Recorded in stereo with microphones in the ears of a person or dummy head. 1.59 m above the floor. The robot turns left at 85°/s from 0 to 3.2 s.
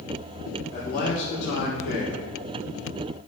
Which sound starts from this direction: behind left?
A man speaking, at 0.7 s.